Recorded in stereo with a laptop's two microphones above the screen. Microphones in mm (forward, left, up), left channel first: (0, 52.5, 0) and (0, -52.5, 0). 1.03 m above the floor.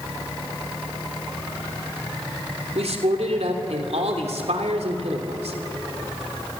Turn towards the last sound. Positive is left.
turn(degrees=-80)